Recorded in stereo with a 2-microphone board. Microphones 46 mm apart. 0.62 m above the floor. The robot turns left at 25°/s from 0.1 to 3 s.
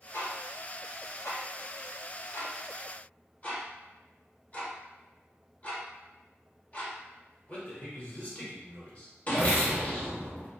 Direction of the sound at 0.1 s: 75° left (ahead or behind).